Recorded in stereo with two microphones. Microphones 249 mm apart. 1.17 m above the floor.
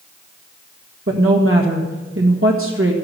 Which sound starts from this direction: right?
A woman speaking, at 1.1 s.